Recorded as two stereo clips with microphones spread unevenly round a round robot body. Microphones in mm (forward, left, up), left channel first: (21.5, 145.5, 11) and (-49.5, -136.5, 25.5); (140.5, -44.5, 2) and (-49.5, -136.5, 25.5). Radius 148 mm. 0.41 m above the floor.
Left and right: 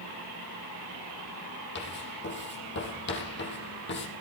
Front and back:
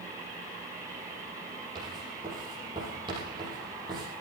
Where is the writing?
130° left, 5.5 m.